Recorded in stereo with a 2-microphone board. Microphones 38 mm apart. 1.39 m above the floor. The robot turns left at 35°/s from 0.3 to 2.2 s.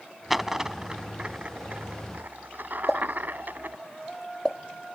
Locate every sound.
0.3 s a dropped coin: 5° right (ahead or behind); by 3.8 s 55° right (ahead or behind)
2.9 s a pop: 15° left (ahead or behind)